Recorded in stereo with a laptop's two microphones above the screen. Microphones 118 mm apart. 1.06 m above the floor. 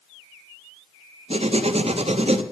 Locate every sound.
1.3 s writing: 60° right (ahead or behind), 0.6 m